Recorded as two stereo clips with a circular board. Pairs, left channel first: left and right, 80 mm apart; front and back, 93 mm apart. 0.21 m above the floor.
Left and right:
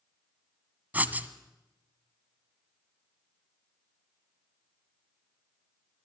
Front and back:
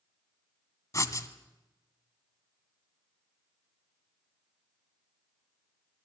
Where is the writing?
35° right, 1.1 m.